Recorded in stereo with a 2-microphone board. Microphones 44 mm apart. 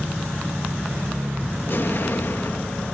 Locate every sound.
1.7 s an explosion: 50° left (ahead or behind)